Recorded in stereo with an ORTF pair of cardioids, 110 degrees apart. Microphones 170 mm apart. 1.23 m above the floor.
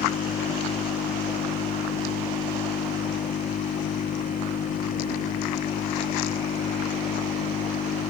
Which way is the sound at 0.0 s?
50° left.